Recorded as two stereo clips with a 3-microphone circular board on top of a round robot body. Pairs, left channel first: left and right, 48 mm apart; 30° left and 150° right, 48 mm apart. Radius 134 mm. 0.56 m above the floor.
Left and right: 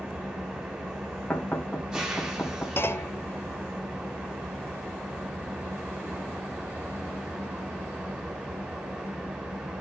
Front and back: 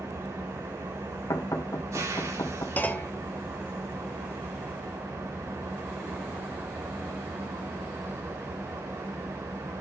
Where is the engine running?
165° right, 5 m.